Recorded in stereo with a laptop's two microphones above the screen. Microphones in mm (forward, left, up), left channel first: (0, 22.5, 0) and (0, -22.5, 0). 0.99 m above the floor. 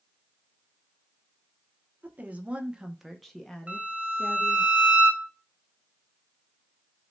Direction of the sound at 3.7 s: 35° right (ahead or behind).